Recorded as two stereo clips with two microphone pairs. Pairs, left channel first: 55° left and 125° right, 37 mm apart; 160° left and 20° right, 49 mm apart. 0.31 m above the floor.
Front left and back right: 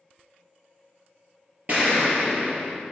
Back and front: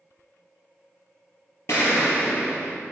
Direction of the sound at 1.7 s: 175° right.